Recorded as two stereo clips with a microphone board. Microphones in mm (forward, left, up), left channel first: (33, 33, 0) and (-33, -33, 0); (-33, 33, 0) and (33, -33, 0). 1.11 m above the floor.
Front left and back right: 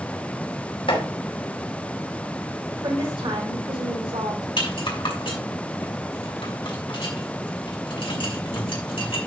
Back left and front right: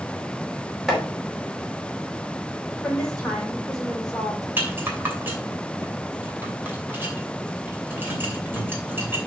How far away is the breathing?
I don't hear breathing.